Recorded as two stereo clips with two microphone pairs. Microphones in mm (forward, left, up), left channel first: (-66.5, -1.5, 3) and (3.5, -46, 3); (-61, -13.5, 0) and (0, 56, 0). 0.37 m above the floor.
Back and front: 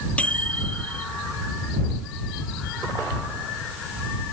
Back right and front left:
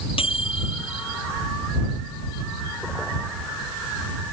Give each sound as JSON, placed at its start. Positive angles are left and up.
{"t": 0.2, "sound": "a microwave", "azimuth_deg": -140}